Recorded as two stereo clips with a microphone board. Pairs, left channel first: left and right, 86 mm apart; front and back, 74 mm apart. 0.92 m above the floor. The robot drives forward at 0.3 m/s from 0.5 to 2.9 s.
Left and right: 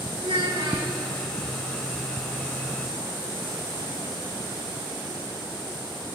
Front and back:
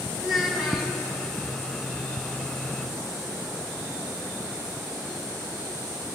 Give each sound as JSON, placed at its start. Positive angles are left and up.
{"t": 0.2, "sound": "a child speaking", "azimuth_deg": -90, "distance_m": 5.5}